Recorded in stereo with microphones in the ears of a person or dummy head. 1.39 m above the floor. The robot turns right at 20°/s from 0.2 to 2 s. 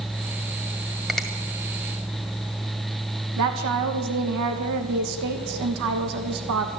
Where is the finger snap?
Centre (ahead or behind), 1.8 m; by 1.3 s 5° left (ahead or behind), 1.8 m.